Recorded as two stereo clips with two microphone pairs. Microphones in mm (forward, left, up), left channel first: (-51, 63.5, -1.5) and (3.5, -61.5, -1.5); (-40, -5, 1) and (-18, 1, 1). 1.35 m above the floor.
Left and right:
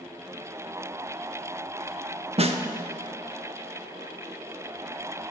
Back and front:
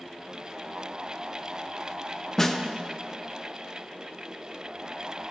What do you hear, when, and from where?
2.4 s a snare drum: 100° right, 0.6 m